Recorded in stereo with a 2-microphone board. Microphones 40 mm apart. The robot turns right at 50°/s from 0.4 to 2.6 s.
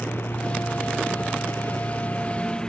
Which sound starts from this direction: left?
A lawn mower, at 0.0 s.